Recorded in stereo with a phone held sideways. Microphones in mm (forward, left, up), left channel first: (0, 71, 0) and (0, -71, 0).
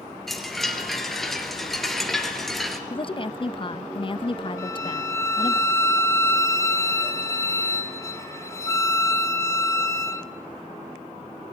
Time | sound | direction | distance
0.3 | a chime | centre (ahead or behind) | 3 m
2.9 | a woman speaking | 35° left (ahead or behind) | 0.7 m
4.6 | a violin | 20° left (ahead or behind) | 2 m